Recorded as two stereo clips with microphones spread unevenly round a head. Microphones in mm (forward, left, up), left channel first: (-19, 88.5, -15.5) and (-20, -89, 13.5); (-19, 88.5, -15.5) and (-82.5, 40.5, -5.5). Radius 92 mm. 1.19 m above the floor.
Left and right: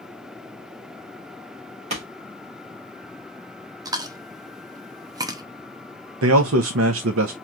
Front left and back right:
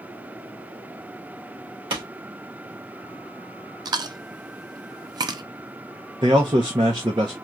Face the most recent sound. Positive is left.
turn(degrees=-85)